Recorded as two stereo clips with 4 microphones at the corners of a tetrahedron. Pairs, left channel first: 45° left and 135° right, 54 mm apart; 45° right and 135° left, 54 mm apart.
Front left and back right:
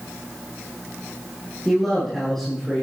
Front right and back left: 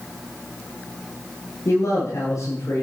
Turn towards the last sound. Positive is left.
turn(degrees=-40)